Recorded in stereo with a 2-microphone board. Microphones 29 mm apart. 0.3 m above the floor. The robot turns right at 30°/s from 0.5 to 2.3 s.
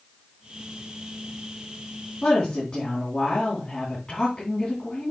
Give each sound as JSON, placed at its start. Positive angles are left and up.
{"t": 2.2, "sound": "a woman speaking", "side_deg": 20, "distance_m": 3.0}